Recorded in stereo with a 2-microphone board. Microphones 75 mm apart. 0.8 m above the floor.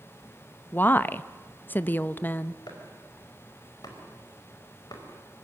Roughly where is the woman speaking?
Left.